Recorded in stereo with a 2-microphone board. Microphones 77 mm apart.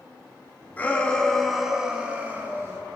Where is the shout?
25° left (ahead or behind), 2.5 m; by 2.8 s 35° right (ahead or behind), 3 m.